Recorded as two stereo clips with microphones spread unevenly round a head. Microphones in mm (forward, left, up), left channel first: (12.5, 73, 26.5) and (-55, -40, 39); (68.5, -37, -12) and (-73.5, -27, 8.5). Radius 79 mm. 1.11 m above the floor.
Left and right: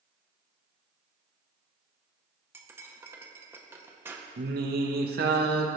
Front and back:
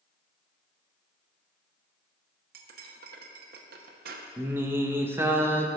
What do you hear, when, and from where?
2.5 s cutlery clinking: 170° left, 0.7 m
4.4 s singing: 110° right, 0.8 m